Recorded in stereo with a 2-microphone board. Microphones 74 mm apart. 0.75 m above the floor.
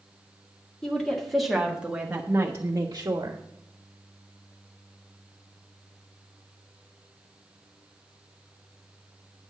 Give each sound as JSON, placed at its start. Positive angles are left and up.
{"t": 0.8, "sound": "a woman speaking", "side_deg": 10, "distance_m": 1.8}